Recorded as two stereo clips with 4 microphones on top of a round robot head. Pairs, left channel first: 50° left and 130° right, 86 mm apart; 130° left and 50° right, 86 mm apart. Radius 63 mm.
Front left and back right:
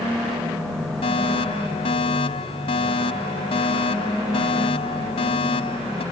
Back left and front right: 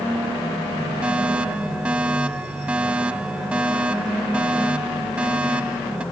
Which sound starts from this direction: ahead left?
A fire alarm, at 1.0 s.